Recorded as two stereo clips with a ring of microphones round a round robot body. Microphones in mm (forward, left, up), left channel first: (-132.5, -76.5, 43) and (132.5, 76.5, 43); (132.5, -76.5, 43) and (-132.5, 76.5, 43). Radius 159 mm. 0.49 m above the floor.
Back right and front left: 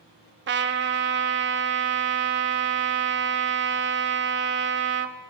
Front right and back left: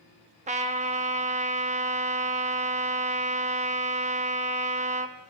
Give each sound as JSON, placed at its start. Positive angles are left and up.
{"t": 0.5, "sound": "a trumpet", "azimuth_deg": 85, "distance_m": 0.6}